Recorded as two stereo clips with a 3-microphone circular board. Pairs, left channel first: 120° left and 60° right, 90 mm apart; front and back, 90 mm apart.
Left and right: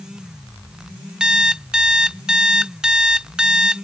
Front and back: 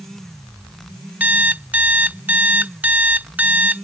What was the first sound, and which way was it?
An alarm clock, 130° right.